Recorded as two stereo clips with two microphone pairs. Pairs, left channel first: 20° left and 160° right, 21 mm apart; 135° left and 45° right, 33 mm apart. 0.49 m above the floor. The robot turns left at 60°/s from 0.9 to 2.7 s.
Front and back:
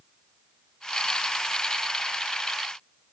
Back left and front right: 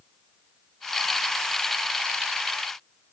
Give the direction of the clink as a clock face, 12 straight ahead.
I don't hear a clink.